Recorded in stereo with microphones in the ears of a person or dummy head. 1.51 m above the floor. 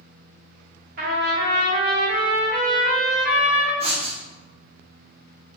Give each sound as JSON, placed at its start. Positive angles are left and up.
{"t": 1.0, "sound": "a trumpet", "side_deg": -50, "distance_m": 1.0}
{"t": 3.8, "sound": "writing", "side_deg": -30, "distance_m": 0.6}